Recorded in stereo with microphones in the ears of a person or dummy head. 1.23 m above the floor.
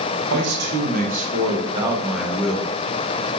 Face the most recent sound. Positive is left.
turn(degrees=15)  # may be behind; listen again after turning